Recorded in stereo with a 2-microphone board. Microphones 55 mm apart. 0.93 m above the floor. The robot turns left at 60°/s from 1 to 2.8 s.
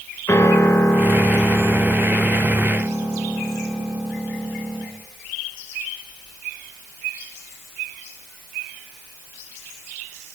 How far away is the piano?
About 4.5 m.